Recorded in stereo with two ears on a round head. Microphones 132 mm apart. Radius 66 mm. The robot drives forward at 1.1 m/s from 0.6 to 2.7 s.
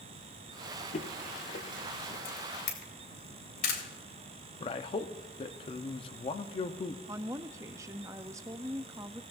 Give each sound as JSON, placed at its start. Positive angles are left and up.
{"t": 0.9, "sound": "footsteps", "side_deg": 45, "distance_m": 1.0}
{"t": 2.2, "sound": "a camera shutter", "side_deg": 60, "distance_m": 3.0}
{"t": 4.6, "sound": "a man speaking", "side_deg": 35, "distance_m": 0.8}
{"t": 7.1, "sound": "a woman speaking", "side_deg": -20, "distance_m": 0.6}